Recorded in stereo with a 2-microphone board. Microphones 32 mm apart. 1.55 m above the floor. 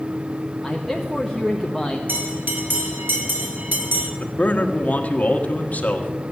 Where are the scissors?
I don't hear scissors.